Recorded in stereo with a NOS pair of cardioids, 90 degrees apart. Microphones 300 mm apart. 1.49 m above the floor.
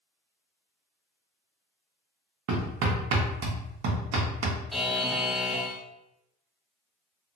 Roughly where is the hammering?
Right.